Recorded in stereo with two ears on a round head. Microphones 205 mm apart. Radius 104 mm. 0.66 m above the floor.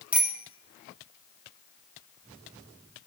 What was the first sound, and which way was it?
A bicycle bell, 5° right (ahead or behind).